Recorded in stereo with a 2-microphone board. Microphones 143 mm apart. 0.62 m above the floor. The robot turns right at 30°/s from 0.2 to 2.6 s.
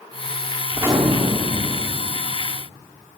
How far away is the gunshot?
About 1.4 m.